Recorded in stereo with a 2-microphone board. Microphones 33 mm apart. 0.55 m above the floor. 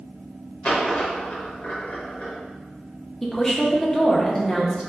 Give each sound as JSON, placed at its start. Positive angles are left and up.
{"t": 0.6, "sound": "a dropped coin", "side_deg": 45, "distance_m": 0.9}
{"t": 3.2, "sound": "a woman speaking", "side_deg": 15, "distance_m": 0.6}